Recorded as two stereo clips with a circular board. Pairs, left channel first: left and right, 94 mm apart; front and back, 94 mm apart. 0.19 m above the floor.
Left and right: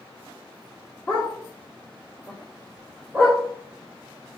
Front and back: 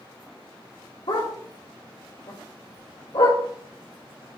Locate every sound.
1.1 s a dog barking: 15° left, 4 m; by 3.4 s straight ahead, 4 m